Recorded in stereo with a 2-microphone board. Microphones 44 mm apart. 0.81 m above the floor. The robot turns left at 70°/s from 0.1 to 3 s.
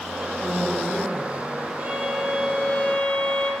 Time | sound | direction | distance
0.4 | a woman speaking | 40° right | 2.5 m
1.8 | a violin | 140° right | 2.0 m